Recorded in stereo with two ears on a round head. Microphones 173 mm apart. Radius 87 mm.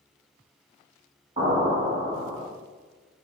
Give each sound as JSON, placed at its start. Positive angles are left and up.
{"t": 1.4, "sound": "an explosion", "side_deg": -35, "distance_m": 1.8}